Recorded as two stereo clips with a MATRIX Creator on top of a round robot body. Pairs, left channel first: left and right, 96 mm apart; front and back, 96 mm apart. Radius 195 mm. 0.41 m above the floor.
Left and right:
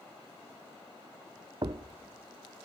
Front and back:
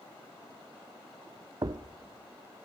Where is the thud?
135° right, 0.5 m.